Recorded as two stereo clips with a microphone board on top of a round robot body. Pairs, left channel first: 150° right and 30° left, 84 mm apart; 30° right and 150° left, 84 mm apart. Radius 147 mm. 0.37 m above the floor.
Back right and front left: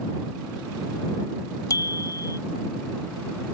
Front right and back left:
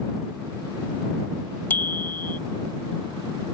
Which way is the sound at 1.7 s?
100° right.